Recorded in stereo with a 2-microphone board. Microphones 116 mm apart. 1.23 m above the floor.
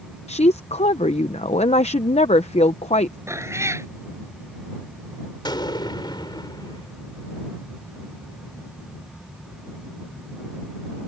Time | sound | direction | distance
0.3 | a woman speaking | 65° left (ahead or behind) | ?
3.3 | a cat meowing | 25° right (ahead or behind) | ?
5.5 | an explosion | 40° left (ahead or behind) | ?